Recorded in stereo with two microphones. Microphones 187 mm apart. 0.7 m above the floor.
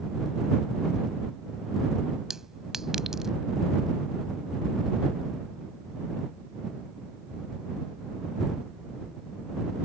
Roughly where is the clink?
Centre.